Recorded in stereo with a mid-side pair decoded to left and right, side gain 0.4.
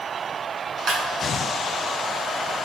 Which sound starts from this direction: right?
A clap, at 0.9 s.